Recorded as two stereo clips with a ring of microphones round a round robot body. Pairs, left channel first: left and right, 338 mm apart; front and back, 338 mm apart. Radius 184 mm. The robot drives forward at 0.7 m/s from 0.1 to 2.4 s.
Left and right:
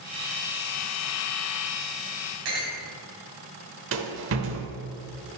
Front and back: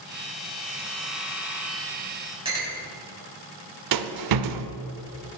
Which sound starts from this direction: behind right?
A rattle, at 3.9 s.